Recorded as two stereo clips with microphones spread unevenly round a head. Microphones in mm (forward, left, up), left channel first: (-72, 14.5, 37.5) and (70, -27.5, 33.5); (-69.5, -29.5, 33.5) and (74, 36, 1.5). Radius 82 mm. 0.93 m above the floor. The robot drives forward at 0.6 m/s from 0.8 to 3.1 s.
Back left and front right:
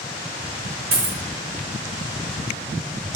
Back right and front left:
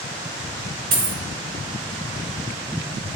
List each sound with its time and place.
0.9 s a dropped coin: 15° right, 1.0 m; by 1.2 s 20° right, 0.9 m